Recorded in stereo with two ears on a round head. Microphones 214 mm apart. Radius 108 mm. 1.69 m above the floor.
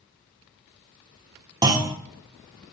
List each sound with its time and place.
1.6 s a clunk: 20° right (ahead or behind), 1.7 m